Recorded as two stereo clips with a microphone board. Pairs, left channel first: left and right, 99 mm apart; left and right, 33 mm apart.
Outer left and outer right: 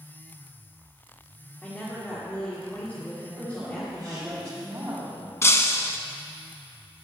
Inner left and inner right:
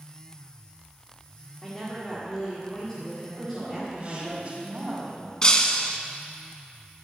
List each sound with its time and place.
1.6 s a woman speaking: 20° left (ahead or behind), 2 m
3.4 s a woman speaking: 25° right (ahead or behind), 4.5 m
5.4 s breaking glass: 25° left (ahead or behind), 0.8 m